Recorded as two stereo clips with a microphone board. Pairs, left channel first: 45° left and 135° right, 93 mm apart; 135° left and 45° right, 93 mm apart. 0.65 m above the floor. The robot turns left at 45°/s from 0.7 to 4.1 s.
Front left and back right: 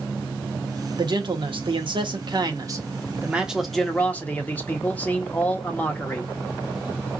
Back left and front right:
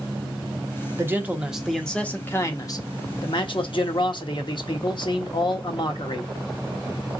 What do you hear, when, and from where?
1.0 s a man speaking: 105° right, 1.0 m; by 6.3 s 115° left, 1.0 m